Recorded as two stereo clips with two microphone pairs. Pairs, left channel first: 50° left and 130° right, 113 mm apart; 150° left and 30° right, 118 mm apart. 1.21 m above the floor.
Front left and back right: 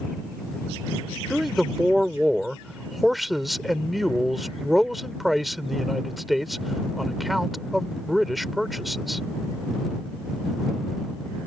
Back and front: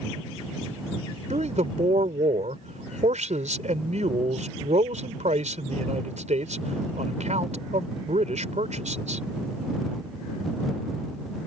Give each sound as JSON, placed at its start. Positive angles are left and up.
{"t": 1.3, "sound": "a man speaking", "azimuth_deg": -40}